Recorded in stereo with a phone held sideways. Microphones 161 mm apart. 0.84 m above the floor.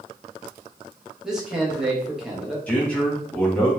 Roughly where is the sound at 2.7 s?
Centre.